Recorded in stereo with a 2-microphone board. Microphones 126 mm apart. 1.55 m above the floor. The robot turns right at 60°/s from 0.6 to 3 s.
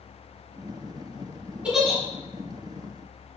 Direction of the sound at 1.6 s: 10° right (ahead or behind).